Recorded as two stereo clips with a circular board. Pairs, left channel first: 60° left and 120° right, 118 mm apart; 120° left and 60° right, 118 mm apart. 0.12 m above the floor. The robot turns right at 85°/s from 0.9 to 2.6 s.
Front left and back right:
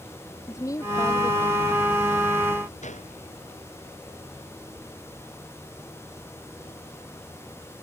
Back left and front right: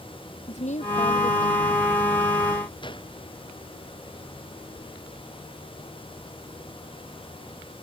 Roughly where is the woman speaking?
Behind left.